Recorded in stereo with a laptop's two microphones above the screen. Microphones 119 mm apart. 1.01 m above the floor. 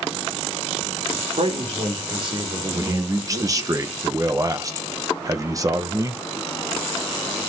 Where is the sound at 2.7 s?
30° right (ahead or behind), 0.9 m.